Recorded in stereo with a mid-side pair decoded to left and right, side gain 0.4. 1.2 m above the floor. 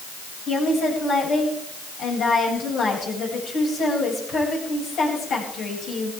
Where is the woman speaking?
70° left, 7.5 m.